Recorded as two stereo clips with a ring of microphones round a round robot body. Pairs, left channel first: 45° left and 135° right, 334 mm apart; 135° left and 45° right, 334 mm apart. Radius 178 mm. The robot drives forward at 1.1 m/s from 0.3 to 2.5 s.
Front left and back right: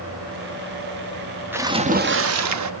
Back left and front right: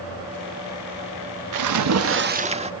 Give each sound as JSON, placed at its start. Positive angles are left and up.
{"t": 1.5, "sound": "a splash", "azimuth_deg": -50, "distance_m": 1.3}